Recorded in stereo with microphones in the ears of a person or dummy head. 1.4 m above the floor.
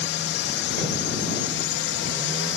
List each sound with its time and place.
0.0 s a drone: 55° left (ahead or behind)